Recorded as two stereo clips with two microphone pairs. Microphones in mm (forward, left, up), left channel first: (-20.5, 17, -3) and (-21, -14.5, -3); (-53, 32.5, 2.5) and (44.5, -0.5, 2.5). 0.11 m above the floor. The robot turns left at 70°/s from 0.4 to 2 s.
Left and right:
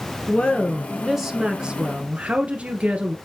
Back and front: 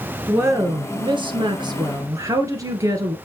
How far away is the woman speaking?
About 2.0 m.